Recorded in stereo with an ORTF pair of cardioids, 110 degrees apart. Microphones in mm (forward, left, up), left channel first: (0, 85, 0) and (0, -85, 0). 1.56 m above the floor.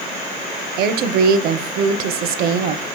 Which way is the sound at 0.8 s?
65° right.